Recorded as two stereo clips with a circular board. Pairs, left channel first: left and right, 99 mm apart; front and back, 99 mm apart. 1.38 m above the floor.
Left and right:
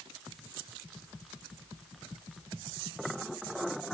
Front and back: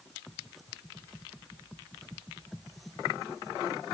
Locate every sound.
Only background noise.